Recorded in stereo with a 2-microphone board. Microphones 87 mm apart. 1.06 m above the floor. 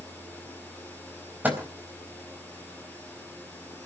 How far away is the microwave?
About 4 m.